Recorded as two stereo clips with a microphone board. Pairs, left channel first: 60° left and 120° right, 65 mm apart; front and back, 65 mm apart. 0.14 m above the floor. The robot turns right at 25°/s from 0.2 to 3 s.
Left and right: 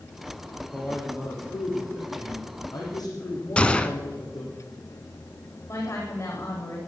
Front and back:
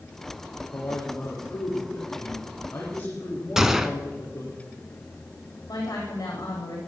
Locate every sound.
0.7 s a man speaking: 5° left, 8 m; by 4.6 s 60° left, 8 m
3.6 s a gunshot: 105° left, 0.8 m
5.7 s a woman speaking: 25° left, 8 m